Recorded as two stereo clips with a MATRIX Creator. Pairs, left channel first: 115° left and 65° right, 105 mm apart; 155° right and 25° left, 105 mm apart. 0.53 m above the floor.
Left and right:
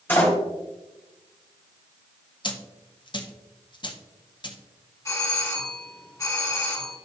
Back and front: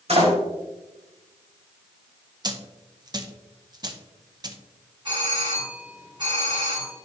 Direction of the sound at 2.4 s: 70° left.